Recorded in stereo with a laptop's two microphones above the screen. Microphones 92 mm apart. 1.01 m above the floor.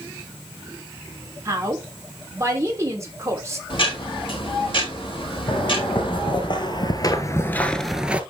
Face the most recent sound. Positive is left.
turn(degrees=-15)  # may be behind; listen again after turning